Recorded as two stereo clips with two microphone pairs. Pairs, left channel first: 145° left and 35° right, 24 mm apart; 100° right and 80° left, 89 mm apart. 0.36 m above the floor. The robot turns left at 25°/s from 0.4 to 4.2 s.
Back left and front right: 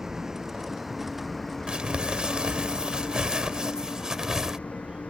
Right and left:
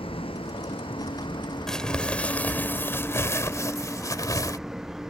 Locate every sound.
0.0 s a vehicle: 100° right; by 5.1 s 165° left
1.7 s crumpling: 15° right; by 4.6 s 80° right